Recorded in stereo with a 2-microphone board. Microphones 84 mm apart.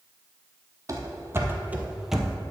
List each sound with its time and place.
0.9 s running footsteps: 40° right (ahead or behind), 1.2 m; by 2.4 s centre (ahead or behind), 1.0 m